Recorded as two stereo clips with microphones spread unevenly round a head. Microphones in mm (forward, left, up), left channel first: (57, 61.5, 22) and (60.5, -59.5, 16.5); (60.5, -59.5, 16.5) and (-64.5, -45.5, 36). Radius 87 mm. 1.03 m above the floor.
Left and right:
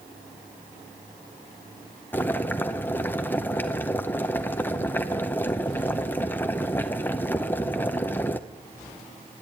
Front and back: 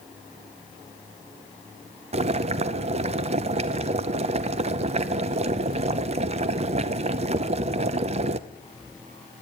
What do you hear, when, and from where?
2.1 s boiling: 165° left, 0.6 m